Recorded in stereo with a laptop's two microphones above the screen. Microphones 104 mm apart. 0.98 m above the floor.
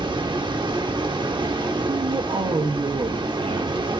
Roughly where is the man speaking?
Right.